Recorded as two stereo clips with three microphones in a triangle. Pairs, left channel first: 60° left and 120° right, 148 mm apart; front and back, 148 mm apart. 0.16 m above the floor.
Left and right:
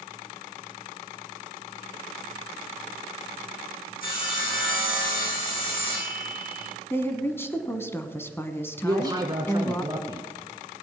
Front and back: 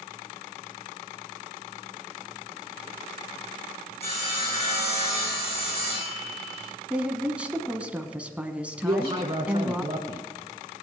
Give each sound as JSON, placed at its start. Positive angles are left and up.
{"t": 4.0, "sound": "sawing", "azimuth_deg": 45, "distance_m": 6.5}
{"t": 6.9, "sound": "a woman speaking", "azimuth_deg": 110, "distance_m": 1.1}
{"t": 8.8, "sound": "a man speaking", "azimuth_deg": -160, "distance_m": 1.5}